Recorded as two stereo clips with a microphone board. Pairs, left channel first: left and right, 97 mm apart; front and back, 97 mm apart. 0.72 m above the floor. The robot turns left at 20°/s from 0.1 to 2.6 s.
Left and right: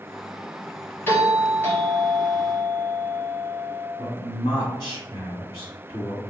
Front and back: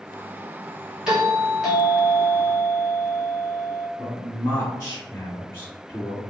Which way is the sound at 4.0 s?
55° left.